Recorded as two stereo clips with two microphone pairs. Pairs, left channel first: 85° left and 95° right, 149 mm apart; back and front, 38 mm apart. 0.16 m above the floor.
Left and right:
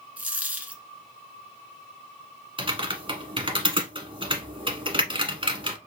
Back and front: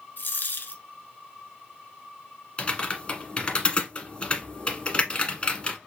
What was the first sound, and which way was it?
A dropped coin, 175° right.